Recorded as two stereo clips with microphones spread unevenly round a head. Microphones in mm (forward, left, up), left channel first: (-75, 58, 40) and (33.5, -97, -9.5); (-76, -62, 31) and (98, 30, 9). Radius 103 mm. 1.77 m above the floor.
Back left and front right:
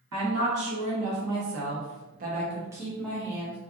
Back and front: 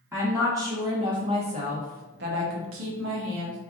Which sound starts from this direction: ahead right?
A woman speaking, at 0.1 s.